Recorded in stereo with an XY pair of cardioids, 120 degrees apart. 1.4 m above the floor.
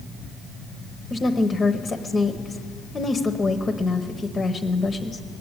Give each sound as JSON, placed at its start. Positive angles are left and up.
{"t": 1.1, "sound": "a woman speaking", "azimuth_deg": 20, "distance_m": 0.9}